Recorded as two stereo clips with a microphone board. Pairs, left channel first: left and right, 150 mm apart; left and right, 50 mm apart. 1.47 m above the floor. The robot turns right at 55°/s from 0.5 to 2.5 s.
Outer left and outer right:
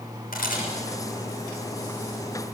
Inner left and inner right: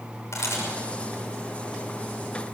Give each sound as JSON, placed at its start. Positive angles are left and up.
{"t": 0.3, "sound": "a camera shutter", "side_deg": 70, "distance_m": 6.0}